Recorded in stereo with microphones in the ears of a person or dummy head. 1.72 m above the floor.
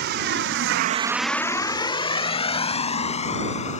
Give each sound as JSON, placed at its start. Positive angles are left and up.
{"t": 0.0, "sound": "a vehicle", "side_deg": -65}